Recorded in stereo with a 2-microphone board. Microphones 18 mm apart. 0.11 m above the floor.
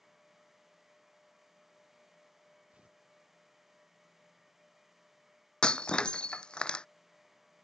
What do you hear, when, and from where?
2.7 s tearing paper: 85° right
5.6 s breaking glass: 50° left (ahead or behind)